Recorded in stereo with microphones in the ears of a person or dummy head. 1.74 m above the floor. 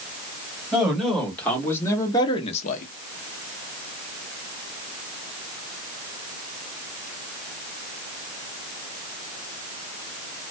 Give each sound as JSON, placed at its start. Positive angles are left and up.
{"t": 0.7, "sound": "a man speaking", "side_deg": 0, "distance_m": 1.5}